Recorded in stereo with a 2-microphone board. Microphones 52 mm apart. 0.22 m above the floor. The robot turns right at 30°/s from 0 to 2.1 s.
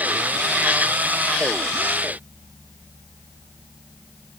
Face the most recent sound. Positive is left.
No sound to turn to.